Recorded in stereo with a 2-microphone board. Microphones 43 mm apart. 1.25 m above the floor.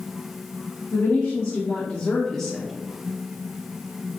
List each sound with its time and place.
0.9 s a woman speaking: 85° left, 1.5 m; by 2.7 s 10° right (ahead or behind), 1.0 m